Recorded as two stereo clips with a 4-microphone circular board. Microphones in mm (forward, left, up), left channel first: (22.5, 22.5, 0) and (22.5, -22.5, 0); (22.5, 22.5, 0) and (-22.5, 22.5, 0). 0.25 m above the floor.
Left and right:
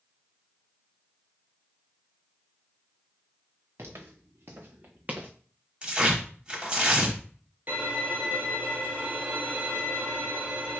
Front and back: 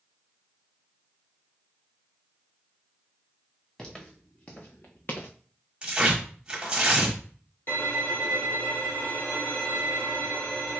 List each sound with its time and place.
3.8 s footsteps: 75° right, 1.6 m; by 5.3 s 25° right, 0.9 m
5.8 s tearing paper: 135° right, 1.1 m
7.7 s a violin: 40° right, 1.8 m